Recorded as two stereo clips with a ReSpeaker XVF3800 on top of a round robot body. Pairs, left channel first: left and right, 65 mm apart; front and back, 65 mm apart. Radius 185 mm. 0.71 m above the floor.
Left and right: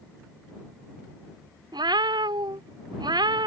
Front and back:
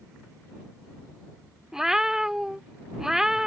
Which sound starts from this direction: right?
A cat meowing, at 1.7 s.